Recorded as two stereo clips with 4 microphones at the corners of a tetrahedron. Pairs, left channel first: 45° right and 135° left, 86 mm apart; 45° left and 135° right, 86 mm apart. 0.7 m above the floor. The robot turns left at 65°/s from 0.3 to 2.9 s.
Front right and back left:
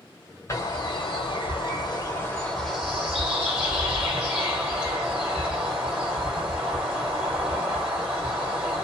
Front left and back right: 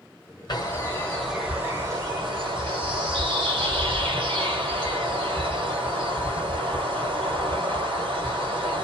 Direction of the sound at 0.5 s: 10° left.